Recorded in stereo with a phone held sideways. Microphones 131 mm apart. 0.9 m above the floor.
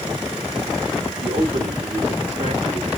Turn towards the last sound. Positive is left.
turn(degrees=-65)  # may be behind; listen again after turning